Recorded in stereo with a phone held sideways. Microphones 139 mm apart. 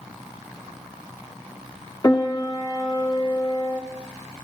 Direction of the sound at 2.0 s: 30° left (ahead or behind).